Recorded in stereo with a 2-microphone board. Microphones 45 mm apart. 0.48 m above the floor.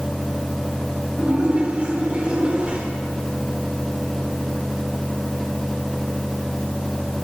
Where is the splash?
30° right (ahead or behind), 5 m.